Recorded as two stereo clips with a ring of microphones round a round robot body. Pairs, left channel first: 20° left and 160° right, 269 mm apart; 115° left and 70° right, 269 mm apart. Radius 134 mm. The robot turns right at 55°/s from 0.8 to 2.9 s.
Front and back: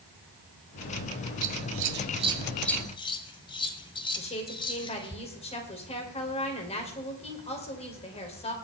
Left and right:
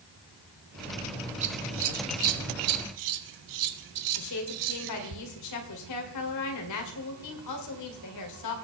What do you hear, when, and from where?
1.4 s scissors: 135° right, 1.0 m; by 5.2 s 50° right, 1.0 m
4.2 s a woman speaking: 90° left, 2.5 m